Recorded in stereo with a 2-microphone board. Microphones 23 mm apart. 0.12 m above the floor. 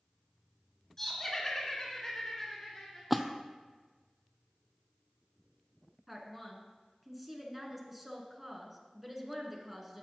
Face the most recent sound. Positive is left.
turn(degrees=-10)  # may be behind; listen again after turning